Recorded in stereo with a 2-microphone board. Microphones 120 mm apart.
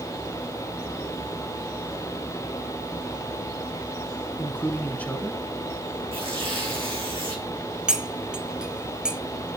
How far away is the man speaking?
About 1.2 m.